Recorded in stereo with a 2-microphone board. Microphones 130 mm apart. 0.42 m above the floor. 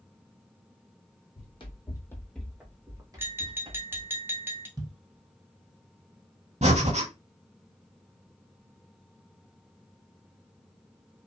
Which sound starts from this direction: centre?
Tapping, at 3.2 s.